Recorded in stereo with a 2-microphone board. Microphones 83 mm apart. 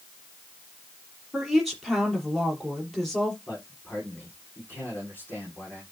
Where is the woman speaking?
Centre (ahead or behind), 5 m.